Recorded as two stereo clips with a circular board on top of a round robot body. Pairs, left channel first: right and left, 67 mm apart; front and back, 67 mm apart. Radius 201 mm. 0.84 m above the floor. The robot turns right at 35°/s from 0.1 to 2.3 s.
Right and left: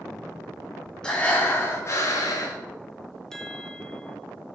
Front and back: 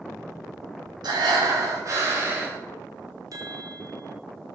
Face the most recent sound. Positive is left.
turn(degrees=-170)